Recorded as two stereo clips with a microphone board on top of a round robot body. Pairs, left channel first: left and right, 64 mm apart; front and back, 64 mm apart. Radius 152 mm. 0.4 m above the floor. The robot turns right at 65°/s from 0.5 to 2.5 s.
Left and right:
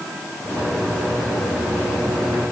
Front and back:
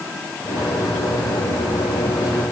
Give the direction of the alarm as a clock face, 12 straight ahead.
No alarm in this recording.